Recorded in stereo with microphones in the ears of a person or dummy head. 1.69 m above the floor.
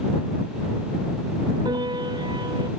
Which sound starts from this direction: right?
A piano, at 1.6 s.